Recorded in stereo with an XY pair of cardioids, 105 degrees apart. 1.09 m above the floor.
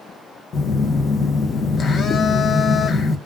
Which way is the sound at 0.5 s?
50° left.